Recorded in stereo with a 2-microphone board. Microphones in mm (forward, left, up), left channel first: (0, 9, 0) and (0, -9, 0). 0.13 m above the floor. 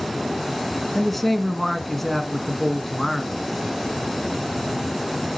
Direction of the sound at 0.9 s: 5° left (ahead or behind).